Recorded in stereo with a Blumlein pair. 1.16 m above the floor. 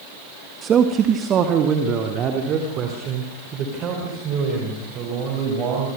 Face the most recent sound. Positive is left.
turn(degrees=-35)